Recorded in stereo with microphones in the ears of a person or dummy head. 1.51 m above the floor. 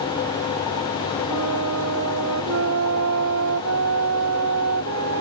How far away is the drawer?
No drawer in this recording.